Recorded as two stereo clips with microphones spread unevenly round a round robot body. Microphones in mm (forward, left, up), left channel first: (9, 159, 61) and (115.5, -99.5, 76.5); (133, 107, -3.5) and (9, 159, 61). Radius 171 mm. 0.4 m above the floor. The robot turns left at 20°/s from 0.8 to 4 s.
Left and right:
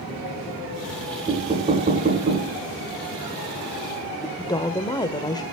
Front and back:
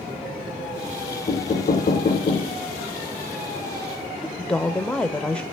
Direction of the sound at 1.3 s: 5° left.